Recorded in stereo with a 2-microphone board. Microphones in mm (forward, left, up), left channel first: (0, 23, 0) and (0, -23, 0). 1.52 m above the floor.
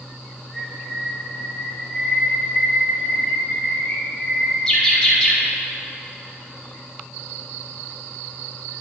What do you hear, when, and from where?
0.5 s a bird: 15° left (ahead or behind), 2.5 m